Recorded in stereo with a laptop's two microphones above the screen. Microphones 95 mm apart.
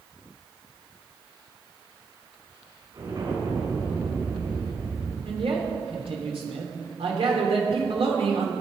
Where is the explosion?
50° right (ahead or behind), 5 m.